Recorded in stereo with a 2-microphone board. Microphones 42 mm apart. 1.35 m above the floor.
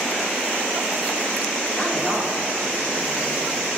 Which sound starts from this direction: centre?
A woman speaking, at 1.7 s.